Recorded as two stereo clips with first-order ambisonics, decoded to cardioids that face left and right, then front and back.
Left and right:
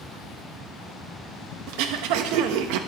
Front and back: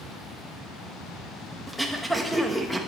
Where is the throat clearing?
90° right, 0.7 m.